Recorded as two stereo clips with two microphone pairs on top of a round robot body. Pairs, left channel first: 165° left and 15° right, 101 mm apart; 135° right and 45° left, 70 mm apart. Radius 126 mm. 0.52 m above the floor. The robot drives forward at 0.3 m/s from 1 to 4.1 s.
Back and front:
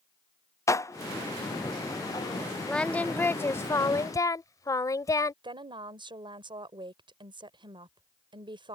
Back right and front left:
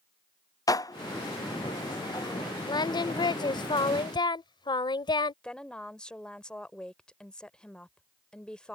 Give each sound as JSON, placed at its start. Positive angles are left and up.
{"t": 0.7, "sound": "dishes clattering", "azimuth_deg": -145}
{"t": 2.7, "sound": "singing", "azimuth_deg": -115}
{"t": 5.4, "sound": "a woman speaking", "azimuth_deg": -60}